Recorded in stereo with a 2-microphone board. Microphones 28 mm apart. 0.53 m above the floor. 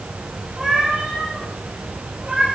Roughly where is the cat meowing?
Centre.